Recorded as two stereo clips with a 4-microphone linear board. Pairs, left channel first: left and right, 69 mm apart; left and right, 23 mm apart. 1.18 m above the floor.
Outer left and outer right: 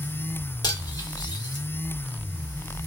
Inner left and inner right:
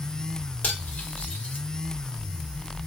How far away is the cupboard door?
No cupboard door in this recording.